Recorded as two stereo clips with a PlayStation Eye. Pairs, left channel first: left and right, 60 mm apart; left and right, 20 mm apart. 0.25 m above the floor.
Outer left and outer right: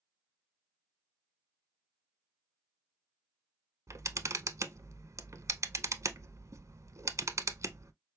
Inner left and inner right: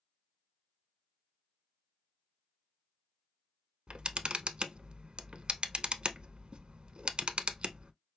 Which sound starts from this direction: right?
A camera shutter, at 3.9 s.